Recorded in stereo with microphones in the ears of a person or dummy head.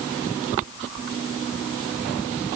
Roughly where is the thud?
I don't hear a thud.